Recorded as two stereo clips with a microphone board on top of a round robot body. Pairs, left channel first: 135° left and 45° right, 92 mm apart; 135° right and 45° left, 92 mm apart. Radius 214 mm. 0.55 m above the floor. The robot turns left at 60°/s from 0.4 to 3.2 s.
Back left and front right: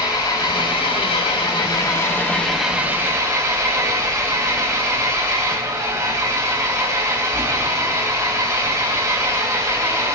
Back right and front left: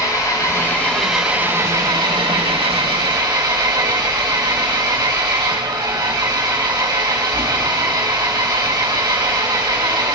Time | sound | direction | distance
0.0 | an engine running | 175° left | 4 m